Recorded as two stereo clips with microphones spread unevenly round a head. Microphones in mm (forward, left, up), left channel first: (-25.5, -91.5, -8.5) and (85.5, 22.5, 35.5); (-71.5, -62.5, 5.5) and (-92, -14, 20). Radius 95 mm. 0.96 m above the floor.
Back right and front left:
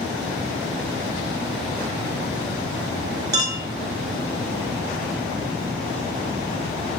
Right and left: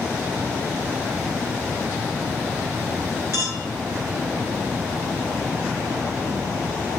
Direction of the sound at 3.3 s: 20° right.